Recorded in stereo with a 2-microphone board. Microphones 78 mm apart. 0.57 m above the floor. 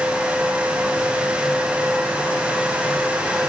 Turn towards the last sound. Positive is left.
No sound to turn to.